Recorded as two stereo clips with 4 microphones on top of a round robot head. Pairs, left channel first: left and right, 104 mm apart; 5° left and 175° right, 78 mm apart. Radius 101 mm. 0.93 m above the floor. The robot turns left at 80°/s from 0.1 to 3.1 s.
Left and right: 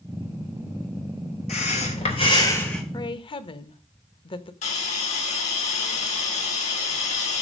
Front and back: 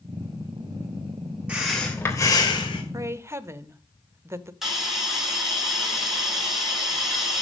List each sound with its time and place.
1.5 s breathing: 110° left, 3 m; by 2.8 s straight ahead, 3 m
2.9 s a woman speaking: 140° left, 1.0 m; by 4.5 s 130° left, 1.0 m
4.6 s a hiss: 100° left, 3.5 m